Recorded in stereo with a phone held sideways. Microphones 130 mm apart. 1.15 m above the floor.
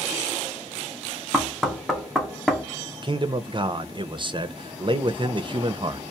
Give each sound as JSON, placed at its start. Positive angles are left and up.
{"t": 1.3, "sound": "knocking", "side_deg": 0, "distance_m": 0.7}
{"t": 3.0, "sound": "a man speaking", "side_deg": -40, "distance_m": 0.5}